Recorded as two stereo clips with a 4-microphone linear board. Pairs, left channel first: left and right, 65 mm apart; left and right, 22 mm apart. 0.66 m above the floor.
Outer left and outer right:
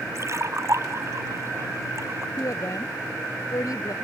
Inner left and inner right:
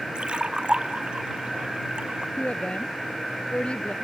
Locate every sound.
0.1 s a splash: 45° right (ahead or behind)
2.4 s a woman speaking: 55° left (ahead or behind)